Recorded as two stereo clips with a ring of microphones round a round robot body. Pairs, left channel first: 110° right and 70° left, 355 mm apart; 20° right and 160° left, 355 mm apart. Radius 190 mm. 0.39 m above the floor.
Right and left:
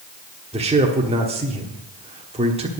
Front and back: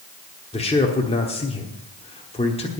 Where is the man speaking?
25° left, 1.3 m.